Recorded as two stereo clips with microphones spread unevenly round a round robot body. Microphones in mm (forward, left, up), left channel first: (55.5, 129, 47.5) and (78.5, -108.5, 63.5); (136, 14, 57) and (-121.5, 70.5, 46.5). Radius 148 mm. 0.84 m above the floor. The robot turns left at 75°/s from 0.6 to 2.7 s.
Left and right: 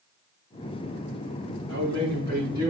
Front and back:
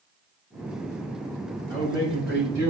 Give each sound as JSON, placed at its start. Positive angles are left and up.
{"t": 1.7, "sound": "a man speaking", "azimuth_deg": -95, "distance_m": 4.5}